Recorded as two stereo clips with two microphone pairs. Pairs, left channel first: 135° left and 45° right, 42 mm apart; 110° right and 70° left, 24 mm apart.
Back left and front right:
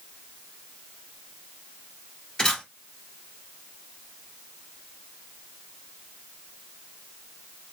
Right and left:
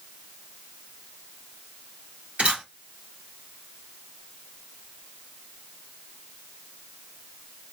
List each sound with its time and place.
2.4 s a camera shutter: 65° left, 2 m